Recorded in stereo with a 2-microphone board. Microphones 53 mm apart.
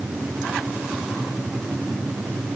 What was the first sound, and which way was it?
Only background noise.